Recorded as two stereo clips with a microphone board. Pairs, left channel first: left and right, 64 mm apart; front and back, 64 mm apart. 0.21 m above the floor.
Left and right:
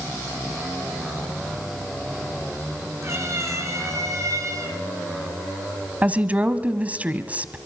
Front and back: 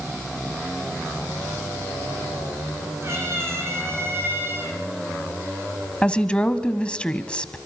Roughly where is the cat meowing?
Behind right.